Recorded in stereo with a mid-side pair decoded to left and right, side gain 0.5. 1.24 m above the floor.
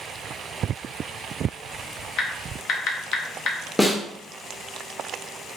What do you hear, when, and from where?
2.2 s typing on a keyboard: 60° left, 0.7 m
3.8 s a snare drum: 10° left, 0.8 m